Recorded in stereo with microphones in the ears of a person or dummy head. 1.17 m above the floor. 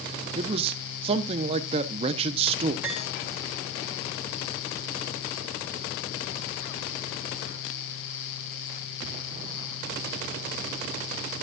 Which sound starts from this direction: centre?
Cutlery clinking, at 2.8 s.